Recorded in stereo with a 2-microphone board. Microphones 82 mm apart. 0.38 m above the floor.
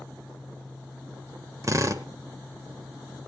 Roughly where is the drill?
Right.